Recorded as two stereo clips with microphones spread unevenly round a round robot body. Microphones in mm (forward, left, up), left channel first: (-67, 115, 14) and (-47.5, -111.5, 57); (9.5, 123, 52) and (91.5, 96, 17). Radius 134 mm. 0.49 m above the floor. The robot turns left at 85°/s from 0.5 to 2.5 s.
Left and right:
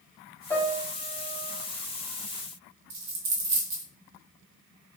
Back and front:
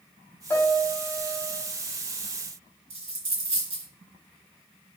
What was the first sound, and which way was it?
A piano, 70° left.